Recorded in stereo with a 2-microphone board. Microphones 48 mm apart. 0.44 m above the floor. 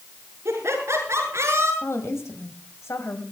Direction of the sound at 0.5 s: 65° right (ahead or behind).